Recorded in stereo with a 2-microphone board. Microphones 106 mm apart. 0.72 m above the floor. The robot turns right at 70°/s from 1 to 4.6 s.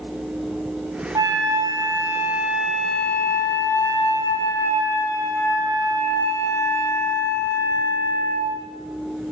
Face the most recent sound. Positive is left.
turn(degrees=130)